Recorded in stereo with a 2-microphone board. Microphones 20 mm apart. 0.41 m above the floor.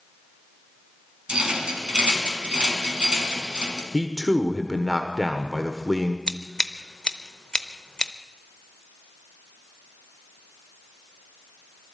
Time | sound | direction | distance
1.3 | a rattle | 50° right (ahead or behind) | 2.5 m
3.9 | a man speaking | 5° right (ahead or behind) | 1.1 m
6.3 | scissors | 45° left (ahead or behind) | 0.7 m